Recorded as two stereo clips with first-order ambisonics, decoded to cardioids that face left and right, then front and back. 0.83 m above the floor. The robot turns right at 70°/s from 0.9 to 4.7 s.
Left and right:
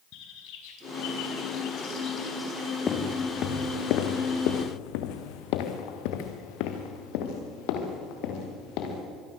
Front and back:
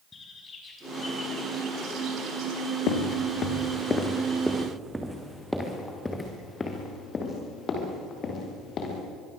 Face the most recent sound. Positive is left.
turn(degrees=60)